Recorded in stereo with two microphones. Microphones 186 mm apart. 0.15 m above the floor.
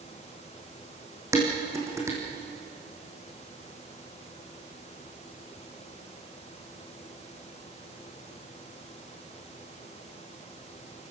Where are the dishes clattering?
15° right (ahead or behind), 5 m.